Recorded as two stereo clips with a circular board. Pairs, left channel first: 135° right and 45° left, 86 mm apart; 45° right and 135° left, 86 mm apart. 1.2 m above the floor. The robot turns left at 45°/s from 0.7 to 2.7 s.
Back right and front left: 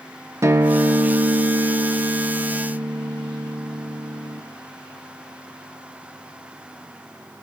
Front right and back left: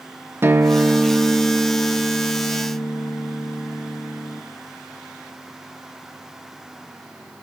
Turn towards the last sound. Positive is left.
turn(degrees=-5)